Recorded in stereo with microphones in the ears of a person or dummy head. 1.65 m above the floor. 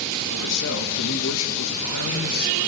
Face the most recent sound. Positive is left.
turn(degrees=75)  # may be behind; listen again after turning